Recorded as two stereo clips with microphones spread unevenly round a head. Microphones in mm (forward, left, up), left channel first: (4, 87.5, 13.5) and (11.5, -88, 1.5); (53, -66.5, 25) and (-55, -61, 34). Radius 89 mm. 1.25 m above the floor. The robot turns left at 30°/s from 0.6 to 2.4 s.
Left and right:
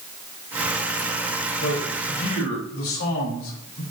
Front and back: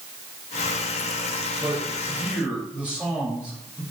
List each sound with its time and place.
1.6 s a man speaking: 120° left, 3 m; by 3.8 s 95° left, 3 m